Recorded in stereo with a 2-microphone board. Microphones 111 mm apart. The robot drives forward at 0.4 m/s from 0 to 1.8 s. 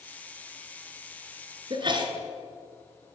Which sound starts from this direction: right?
A sneeze, at 1.7 s.